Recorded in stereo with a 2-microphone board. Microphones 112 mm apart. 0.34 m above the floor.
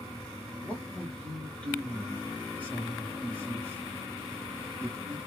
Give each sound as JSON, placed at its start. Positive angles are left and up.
{"t": 0.6, "sound": "a man speaking", "side_deg": 10, "distance_m": 1.5}